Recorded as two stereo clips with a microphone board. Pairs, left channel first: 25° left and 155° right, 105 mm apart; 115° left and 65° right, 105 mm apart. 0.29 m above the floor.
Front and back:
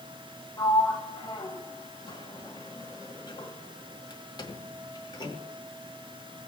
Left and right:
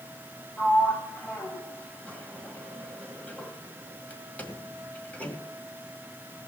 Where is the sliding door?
40° left, 1.8 m.